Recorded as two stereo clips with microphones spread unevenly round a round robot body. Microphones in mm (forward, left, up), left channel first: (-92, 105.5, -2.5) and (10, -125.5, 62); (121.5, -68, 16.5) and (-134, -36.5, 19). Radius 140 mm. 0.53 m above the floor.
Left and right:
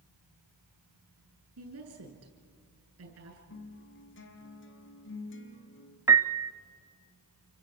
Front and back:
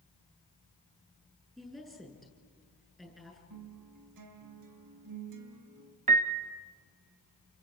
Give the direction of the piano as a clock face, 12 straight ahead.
5 o'clock.